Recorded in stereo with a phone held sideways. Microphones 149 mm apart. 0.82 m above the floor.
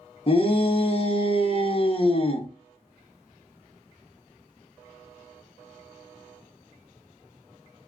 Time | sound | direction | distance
0.3 | a shout | 40° left (ahead or behind) | 0.6 m